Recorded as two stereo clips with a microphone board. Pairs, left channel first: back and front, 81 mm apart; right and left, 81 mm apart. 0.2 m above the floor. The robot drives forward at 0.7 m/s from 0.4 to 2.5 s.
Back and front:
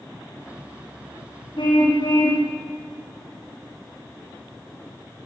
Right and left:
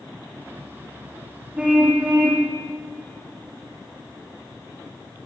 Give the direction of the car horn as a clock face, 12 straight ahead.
6 o'clock.